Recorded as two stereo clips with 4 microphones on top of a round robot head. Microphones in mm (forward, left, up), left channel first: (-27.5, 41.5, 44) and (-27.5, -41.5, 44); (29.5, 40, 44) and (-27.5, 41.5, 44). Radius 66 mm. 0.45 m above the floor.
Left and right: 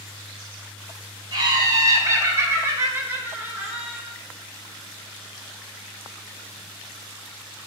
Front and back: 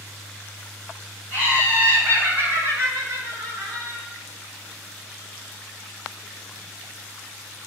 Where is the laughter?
120° right, 2.5 m; by 4.0 s 165° right, 2.5 m.